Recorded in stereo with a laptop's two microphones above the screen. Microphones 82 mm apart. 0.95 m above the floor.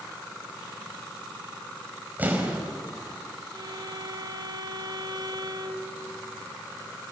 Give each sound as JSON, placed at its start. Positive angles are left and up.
{"t": 2.2, "sound": "an explosion", "side_deg": -20, "distance_m": 5.0}
{"t": 3.5, "sound": "a violin", "side_deg": -60, "distance_m": 1.5}